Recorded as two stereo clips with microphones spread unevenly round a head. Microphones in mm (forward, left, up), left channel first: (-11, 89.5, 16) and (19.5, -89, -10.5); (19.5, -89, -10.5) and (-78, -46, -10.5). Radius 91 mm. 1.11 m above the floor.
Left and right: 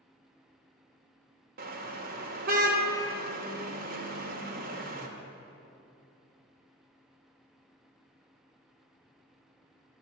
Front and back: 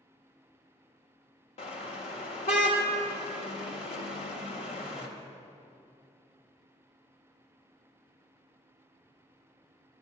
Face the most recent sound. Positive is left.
turn(degrees=-35)